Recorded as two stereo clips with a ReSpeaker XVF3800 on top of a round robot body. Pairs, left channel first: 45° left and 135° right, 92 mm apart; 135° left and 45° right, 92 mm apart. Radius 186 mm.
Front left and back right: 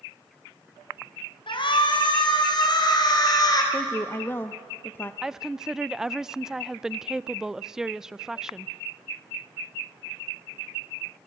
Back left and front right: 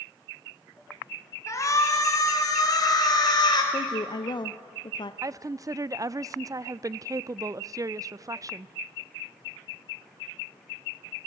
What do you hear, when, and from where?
1.5 s a shout: 80° left, 4.5 m; by 3.6 s 95° left, 4 m
3.7 s a woman speaking: 110° left, 0.9 m
5.2 s a woman speaking: 55° right, 0.6 m